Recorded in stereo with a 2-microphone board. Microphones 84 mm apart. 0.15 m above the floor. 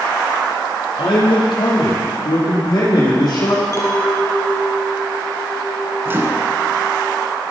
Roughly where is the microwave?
Right.